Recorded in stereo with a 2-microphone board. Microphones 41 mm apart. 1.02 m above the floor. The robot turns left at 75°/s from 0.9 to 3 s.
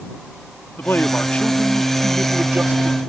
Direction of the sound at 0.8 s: 70° left.